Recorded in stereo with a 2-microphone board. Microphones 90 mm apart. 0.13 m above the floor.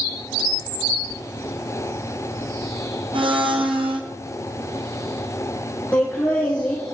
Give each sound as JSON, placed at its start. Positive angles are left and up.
{"t": 3.1, "sound": "a blender", "side_deg": -75, "distance_m": 1.6}
{"t": 5.9, "sound": "laughter", "side_deg": 15, "distance_m": 2.5}